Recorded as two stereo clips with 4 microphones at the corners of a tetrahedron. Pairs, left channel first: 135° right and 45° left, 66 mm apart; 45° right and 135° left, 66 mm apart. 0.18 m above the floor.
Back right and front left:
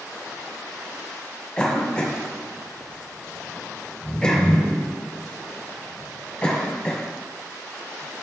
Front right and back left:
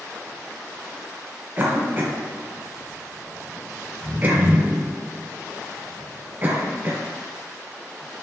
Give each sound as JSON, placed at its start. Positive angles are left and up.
{"t": 1.6, "sound": "a cough", "azimuth_deg": 160, "distance_m": 1.5}